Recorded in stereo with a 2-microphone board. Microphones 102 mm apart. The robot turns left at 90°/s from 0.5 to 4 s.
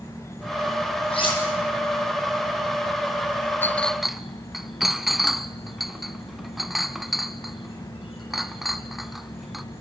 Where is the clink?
20° left (ahead or behind), 0.8 m; by 9.6 s centre (ahead or behind), 0.8 m.